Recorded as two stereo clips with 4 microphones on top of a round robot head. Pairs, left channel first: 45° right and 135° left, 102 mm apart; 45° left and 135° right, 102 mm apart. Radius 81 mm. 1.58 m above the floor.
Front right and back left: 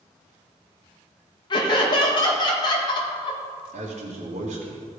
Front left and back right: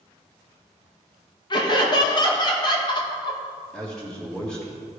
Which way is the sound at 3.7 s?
130° left.